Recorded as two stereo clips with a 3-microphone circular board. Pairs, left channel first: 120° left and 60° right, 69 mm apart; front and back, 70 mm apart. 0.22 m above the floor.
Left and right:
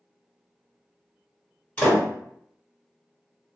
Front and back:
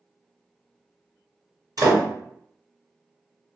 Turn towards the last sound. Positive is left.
turn(degrees=-175)